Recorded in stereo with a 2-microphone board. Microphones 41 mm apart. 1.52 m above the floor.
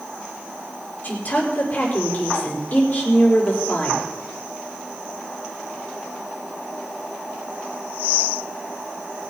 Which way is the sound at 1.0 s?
40° left (ahead or behind).